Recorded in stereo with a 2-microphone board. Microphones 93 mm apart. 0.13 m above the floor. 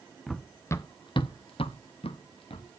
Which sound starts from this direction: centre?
Running footsteps, at 0.3 s.